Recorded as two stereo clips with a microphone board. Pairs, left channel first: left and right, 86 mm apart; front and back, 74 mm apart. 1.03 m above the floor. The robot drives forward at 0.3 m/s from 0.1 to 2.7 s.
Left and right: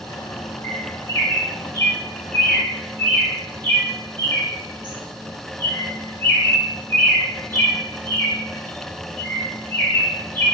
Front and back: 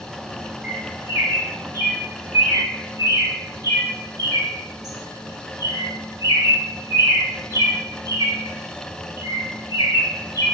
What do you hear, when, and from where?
0.6 s a bird: 120° left, 0.6 m; by 10.5 s 155° left, 1.0 m